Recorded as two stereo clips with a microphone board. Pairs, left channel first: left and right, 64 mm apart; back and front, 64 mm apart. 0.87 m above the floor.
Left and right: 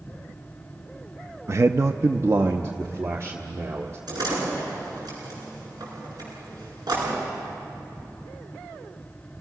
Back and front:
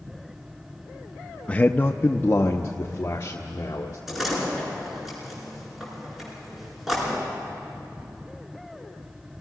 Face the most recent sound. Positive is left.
turn(degrees=-85)